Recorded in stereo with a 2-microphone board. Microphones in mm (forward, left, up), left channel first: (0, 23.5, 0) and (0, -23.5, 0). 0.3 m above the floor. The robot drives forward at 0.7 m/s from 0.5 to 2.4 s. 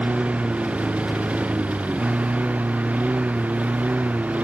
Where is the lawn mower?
30° right (ahead or behind).